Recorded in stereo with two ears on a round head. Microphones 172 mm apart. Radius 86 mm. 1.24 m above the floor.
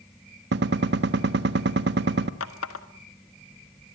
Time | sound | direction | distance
0.5 | a gunshot | 60° right (ahead or behind) | 1.3 m
2.4 | a running tap | 80° left | 1.6 m